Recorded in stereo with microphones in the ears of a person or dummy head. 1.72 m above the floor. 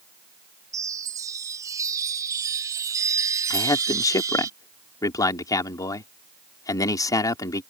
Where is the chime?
15° right (ahead or behind).